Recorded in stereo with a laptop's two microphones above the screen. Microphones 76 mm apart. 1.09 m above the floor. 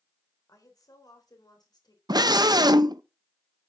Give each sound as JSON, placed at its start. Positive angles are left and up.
{"t": 0.5, "sound": "a woman speaking", "side_deg": 50, "distance_m": 4.0}
{"t": 2.1, "sound": "a scream", "side_deg": -65, "distance_m": 0.8}